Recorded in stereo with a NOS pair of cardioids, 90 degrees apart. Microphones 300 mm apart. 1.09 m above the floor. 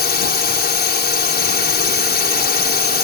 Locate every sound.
0.0 s a drone: 35° left